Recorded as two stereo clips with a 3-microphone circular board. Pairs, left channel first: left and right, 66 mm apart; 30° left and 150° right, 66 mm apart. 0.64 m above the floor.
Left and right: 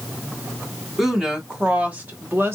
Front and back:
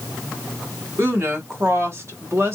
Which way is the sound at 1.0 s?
175° right.